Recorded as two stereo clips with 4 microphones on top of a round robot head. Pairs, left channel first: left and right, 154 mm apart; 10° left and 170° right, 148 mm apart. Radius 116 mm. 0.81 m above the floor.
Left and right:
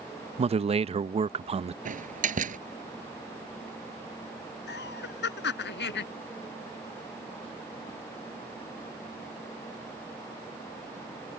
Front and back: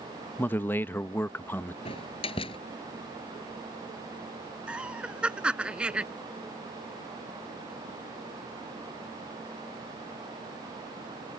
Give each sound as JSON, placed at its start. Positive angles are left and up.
{"t": 0.4, "sound": "a man speaking", "azimuth_deg": -65}
{"t": 1.9, "sound": "a door slam", "azimuth_deg": -55}
{"t": 4.7, "sound": "laughter", "azimuth_deg": 105}